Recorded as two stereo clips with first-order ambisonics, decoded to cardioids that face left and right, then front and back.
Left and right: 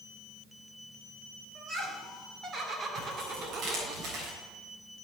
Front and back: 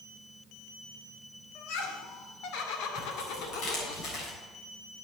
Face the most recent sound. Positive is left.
turn(degrees=-40)